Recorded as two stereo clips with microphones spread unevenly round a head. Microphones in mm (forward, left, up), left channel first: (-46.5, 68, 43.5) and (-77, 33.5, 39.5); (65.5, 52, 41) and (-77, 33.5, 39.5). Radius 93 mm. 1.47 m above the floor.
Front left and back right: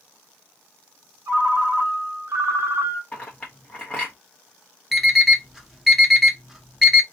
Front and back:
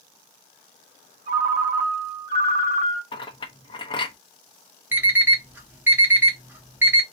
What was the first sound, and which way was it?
A ringtone, 130° right.